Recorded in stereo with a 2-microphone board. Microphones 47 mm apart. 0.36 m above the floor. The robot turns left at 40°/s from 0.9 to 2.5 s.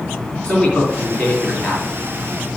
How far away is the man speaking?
About 3.5 m.